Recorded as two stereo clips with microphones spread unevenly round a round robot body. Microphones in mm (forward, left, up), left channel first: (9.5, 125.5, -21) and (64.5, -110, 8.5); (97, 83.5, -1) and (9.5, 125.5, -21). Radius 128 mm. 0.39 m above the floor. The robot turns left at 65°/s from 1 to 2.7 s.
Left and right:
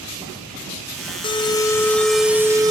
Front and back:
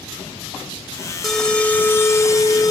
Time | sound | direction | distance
1.2 | an alarm | 85° left | 0.9 m